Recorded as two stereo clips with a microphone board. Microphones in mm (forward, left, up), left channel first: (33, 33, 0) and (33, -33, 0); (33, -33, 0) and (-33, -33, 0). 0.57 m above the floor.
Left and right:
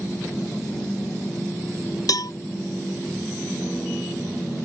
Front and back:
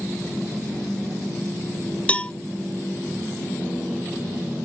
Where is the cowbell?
70° left.